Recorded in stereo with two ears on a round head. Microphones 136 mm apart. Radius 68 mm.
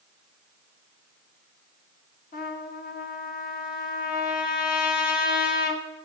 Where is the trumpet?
60° left (ahead or behind), 1.6 m.